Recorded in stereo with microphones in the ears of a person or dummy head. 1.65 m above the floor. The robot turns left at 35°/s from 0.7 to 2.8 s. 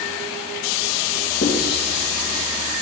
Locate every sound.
1.4 s writing: 45° left (ahead or behind), 2.5 m; by 2.4 s 80° left, 2.5 m